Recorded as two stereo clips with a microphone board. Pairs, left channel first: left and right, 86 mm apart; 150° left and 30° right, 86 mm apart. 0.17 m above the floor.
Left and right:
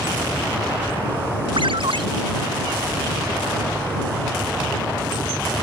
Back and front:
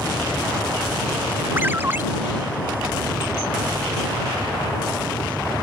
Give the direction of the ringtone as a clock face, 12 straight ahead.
3 o'clock.